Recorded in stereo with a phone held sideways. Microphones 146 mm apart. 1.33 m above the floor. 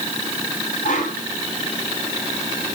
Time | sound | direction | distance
0.8 | a whoosh | 70° left (ahead or behind) | 4 m